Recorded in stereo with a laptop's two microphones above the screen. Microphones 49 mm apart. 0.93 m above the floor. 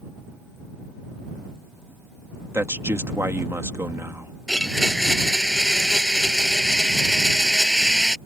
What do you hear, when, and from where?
2.5 s a man speaking: 55° right (ahead or behind)
4.5 s a blender: 5° left (ahead or behind)